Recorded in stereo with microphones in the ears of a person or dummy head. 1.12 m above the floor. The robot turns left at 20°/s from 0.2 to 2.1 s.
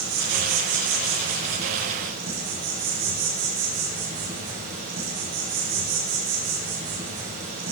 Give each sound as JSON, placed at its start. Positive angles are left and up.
{"t": 0.0, "sound": "an insect", "azimuth_deg": -95, "distance_m": 3.5}